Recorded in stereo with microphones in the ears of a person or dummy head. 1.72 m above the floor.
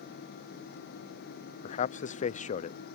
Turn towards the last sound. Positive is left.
turn(degrees=45)  # may be behind; listen again after turning